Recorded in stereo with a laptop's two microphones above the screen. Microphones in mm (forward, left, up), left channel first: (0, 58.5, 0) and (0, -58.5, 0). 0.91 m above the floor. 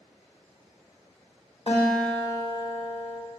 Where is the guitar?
55° left (ahead or behind), 1.0 m.